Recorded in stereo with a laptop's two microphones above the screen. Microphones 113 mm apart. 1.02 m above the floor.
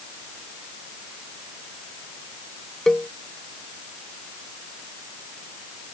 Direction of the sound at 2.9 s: 5° left (ahead or behind).